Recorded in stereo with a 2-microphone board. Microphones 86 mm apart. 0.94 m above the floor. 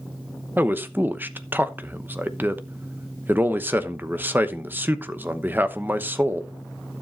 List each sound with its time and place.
0.6 s a man speaking: 20° right (ahead or behind), 0.9 m